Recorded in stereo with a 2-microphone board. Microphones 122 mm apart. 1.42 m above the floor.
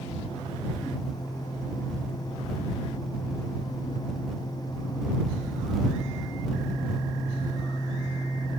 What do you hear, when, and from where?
Only background noise.